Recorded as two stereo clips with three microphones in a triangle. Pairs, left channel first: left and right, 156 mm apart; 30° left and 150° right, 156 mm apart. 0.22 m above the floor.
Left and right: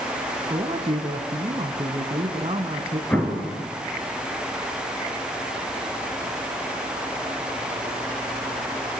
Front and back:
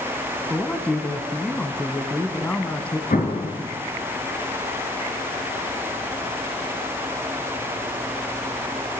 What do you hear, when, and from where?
0.5 s a man speaking: 50° right, 1.8 m
3.1 s an explosion: 10° left, 3 m